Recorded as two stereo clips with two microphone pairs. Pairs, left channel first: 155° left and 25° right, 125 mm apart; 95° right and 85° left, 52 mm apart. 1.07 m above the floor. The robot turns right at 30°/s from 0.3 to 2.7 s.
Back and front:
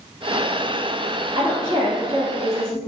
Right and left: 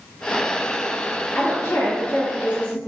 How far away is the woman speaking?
About 1.7 m.